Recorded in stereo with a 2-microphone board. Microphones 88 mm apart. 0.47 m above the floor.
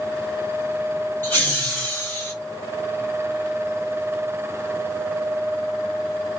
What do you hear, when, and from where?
1.2 s laughter: 25° left (ahead or behind), 2 m